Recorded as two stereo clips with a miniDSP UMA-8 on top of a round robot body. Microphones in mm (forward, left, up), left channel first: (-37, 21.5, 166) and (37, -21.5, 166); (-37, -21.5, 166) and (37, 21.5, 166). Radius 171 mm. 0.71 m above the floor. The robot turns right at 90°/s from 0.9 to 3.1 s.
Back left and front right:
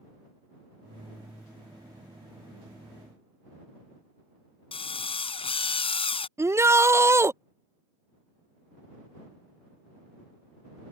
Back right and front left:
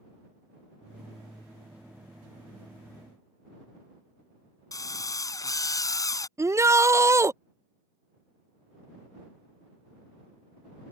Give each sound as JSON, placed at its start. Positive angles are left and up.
{"t": 4.7, "sound": "a drill", "azimuth_deg": 160}
{"t": 6.4, "sound": "a shout", "azimuth_deg": 5}